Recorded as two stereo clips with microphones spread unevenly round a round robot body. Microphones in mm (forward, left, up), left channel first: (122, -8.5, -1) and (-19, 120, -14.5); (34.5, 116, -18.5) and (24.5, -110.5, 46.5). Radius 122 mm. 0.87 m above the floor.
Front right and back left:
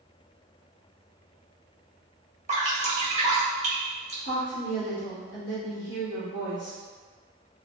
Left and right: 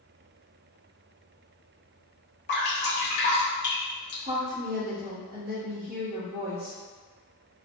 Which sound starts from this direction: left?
Dripping, at 2.5 s.